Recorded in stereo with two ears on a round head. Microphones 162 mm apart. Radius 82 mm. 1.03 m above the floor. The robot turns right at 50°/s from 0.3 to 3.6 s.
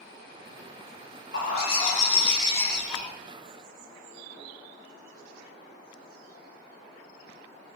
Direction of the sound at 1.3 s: 105° left.